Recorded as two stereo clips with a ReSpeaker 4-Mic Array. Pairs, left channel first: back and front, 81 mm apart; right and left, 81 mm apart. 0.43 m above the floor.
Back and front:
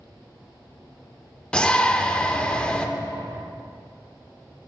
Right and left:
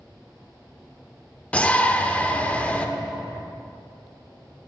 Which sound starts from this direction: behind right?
A shout, at 1.5 s.